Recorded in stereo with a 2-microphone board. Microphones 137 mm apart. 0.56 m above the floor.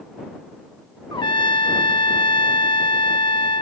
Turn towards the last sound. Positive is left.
turn(degrees=35)  # may be behind; listen again after turning